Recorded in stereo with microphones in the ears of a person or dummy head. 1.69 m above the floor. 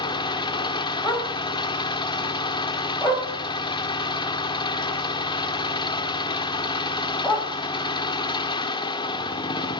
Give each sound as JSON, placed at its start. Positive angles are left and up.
{"t": 0.0, "sound": "an engine running", "side_deg": 20, "distance_m": 0.8}
{"t": 1.0, "sound": "a dog barking", "side_deg": 5, "distance_m": 4.5}